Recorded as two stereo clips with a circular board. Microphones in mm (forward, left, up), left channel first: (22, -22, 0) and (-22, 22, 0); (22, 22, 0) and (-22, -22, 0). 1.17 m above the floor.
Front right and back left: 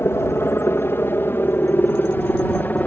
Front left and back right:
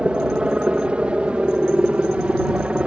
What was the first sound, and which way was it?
A helicopter, 70° right.